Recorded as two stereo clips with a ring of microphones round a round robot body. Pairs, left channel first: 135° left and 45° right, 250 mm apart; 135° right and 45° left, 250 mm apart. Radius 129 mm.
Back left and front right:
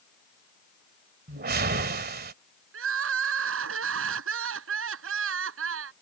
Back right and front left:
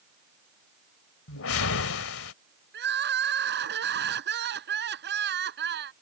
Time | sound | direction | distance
1.3 | a whoosh | 100° right | ?
2.7 | crying | 5° right | ?